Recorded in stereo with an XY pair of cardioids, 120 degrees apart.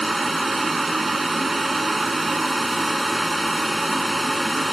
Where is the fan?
15° right.